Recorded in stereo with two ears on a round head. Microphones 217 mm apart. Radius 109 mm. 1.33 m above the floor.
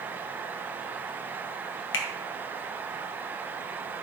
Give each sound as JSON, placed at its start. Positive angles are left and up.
{"t": 1.9, "sound": "a finger snap", "side_deg": 50, "distance_m": 1.1}